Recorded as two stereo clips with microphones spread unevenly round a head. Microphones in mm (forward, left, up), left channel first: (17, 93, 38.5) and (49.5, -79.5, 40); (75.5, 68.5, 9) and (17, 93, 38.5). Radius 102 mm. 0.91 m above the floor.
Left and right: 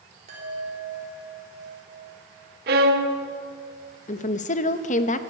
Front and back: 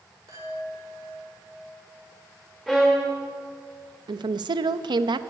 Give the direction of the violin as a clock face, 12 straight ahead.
4 o'clock.